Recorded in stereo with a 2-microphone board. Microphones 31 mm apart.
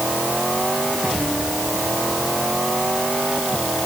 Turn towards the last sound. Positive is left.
No sound to turn to.